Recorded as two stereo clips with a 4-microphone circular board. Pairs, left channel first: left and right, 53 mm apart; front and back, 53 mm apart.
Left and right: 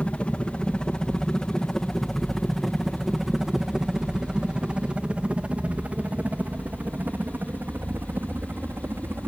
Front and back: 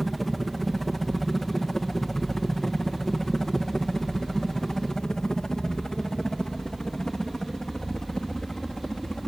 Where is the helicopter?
85° left; by 9.3 s 70° right.